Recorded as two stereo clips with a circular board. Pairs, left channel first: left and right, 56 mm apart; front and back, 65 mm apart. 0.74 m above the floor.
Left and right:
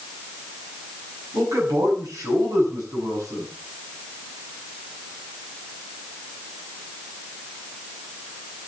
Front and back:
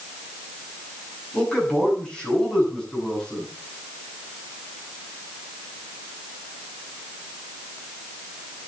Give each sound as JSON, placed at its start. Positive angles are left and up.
{"t": 1.3, "sound": "a man speaking", "azimuth_deg": -80, "distance_m": 7.5}